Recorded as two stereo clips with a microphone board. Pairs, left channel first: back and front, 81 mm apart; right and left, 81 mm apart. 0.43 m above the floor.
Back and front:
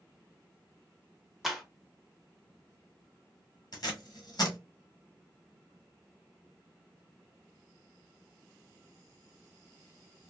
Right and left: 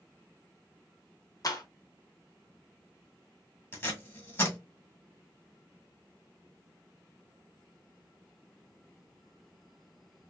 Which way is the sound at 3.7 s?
150° right.